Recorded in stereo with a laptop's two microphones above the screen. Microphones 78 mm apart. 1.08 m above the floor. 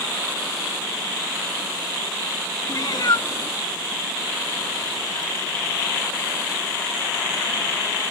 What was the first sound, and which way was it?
A cat meowing, 45° left (ahead or behind).